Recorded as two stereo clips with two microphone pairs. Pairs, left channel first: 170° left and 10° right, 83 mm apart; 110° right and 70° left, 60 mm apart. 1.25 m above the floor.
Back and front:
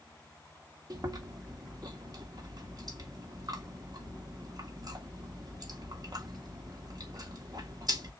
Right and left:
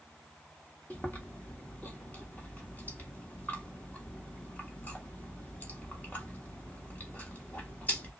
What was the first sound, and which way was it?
Chewing, 45° right.